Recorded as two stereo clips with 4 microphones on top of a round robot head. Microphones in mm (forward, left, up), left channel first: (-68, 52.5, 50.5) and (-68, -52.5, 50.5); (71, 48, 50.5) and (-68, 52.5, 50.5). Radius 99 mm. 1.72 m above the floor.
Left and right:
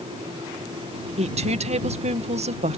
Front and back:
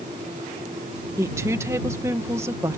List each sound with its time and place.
1.2 s a woman speaking: 105° right